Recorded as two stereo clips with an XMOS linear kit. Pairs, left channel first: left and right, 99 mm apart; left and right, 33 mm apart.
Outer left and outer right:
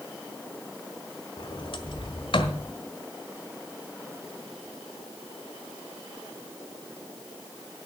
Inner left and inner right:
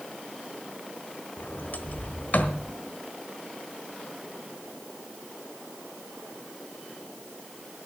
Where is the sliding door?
55° left (ahead or behind), 1.4 m.